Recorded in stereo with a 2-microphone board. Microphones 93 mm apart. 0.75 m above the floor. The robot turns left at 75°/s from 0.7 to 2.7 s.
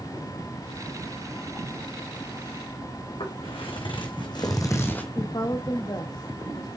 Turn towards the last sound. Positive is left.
turn(degrees=45)  # may be behind; listen again after turning